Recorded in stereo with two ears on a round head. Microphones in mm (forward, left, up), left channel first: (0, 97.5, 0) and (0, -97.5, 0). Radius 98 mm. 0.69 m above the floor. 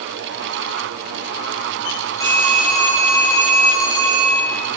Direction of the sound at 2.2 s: 15° left (ahead or behind).